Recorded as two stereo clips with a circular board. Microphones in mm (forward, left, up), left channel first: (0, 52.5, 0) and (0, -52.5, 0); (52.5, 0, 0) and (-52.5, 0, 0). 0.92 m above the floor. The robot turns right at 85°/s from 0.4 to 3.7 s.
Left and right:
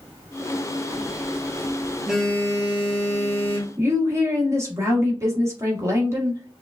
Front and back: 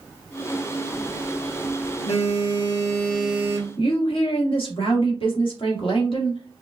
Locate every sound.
0.9 s a phone buzzing: 110° right, 1.1 m; by 3.7 s 125° left, 1.1 m
3.8 s a woman speaking: 30° right, 1.4 m